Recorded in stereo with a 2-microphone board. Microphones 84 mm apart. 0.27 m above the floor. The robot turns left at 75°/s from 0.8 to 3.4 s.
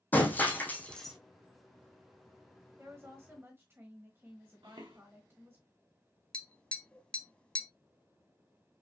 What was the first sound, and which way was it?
Breaking glass, 20° left (ahead or behind).